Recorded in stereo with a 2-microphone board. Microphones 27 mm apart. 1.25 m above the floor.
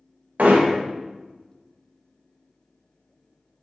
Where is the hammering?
85° right, 1.3 m.